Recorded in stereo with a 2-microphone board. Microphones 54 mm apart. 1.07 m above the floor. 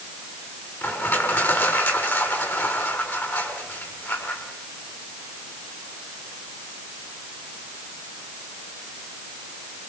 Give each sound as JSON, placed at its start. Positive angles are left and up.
{"t": 0.8, "sound": "crushing", "side_deg": 45, "distance_m": 6.5}